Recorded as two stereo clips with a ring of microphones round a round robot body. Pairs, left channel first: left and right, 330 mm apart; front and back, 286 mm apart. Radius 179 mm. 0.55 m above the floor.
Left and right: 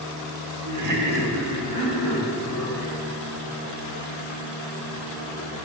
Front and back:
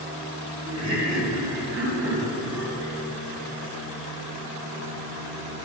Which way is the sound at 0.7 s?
95° right.